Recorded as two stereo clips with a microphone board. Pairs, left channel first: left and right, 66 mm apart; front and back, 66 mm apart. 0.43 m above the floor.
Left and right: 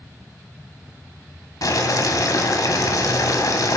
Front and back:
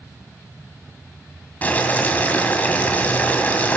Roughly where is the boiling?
Ahead left.